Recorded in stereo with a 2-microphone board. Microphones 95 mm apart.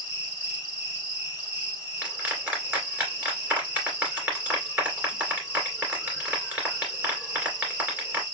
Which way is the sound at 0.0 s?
15° right (ahead or behind).